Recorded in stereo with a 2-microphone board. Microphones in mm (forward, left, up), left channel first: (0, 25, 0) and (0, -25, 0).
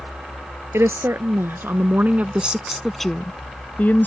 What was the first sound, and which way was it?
A woman speaking, 65° right (ahead or behind).